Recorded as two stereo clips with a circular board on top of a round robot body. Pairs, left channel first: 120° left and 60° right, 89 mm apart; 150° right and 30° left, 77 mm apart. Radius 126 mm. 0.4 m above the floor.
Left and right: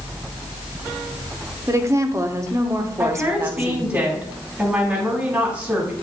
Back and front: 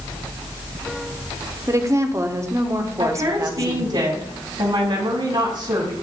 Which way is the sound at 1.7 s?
10° right.